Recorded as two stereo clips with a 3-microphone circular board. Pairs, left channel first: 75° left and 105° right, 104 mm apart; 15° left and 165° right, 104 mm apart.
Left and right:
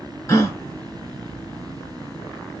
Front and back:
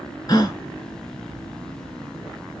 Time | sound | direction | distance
0.3 | a gasp | 35° left | 0.9 m